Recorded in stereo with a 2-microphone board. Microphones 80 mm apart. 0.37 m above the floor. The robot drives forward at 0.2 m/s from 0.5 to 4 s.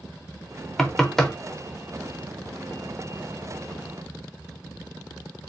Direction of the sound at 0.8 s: 5° left (ahead or behind).